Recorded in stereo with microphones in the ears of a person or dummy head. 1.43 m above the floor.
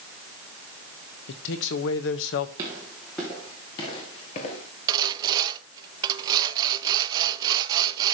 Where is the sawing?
25° right (ahead or behind), 0.6 m.